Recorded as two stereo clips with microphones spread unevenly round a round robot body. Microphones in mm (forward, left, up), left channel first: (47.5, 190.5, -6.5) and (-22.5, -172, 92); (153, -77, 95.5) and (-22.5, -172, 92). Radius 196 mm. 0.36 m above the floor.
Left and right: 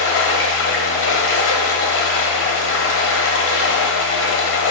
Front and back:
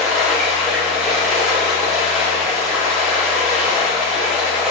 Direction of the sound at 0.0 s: 120° left.